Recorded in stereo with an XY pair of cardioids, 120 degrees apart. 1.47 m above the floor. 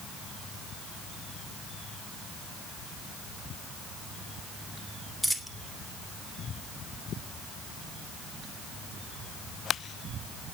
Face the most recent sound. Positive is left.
turn(degrees=0)